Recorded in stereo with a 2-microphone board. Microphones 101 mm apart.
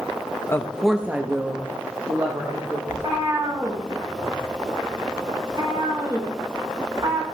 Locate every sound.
0.5 s a woman speaking: 25° left (ahead or behind), 0.6 m; by 2.8 s 40° right (ahead or behind), 1.9 m
2.9 s a cat meowing: 45° right (ahead or behind), 2 m